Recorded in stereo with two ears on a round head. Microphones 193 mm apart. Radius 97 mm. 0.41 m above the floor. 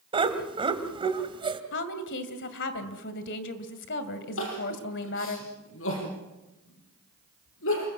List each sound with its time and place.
0.1 s laughter: 25° right (ahead or behind), 2.5 m
1.7 s a woman speaking: 60° left (ahead or behind), 2 m
4.4 s crying: 70° left (ahead or behind), 6.5 m